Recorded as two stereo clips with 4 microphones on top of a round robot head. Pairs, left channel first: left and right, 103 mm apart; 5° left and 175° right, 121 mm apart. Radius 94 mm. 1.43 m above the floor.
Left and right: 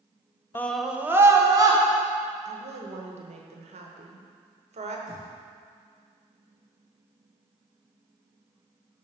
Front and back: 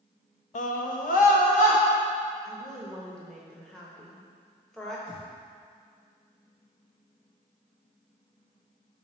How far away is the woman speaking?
About 1.0 m.